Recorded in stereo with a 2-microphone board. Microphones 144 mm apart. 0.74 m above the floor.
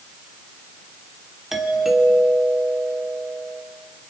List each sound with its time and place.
1.5 s a doorbell: 5° right (ahead or behind), 3 m